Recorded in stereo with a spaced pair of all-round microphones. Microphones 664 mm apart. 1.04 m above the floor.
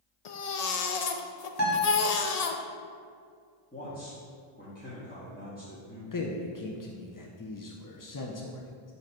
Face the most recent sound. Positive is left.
turn(degrees=35)  # may be behind; listen again after turning